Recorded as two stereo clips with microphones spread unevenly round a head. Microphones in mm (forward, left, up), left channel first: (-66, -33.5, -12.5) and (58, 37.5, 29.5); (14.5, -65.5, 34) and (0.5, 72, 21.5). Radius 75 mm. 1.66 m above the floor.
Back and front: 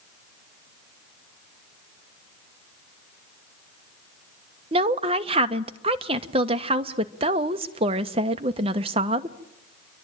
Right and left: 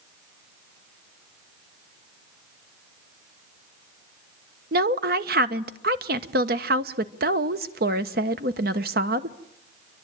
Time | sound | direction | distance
4.7 | a woman speaking | 75° left | 1.2 m